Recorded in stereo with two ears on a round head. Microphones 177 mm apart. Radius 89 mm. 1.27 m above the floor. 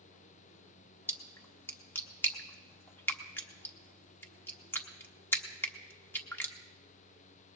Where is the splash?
10° left (ahead or behind), 1.0 m.